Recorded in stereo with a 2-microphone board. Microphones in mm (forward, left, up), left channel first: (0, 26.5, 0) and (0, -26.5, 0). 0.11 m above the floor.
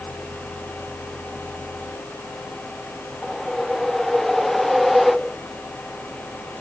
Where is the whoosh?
5° left (ahead or behind).